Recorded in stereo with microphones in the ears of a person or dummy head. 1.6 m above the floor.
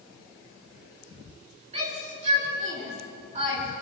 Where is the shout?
35° right (ahead or behind), 5 m.